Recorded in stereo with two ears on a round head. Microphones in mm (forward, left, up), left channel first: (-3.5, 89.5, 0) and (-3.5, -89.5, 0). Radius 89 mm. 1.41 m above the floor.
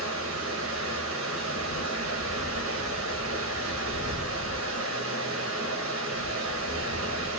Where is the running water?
75° right (ahead or behind), 1.3 m.